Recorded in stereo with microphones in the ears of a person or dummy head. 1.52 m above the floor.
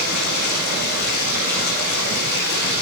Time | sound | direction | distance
0.0 | running water | 55° left (ahead or behind) | 9 m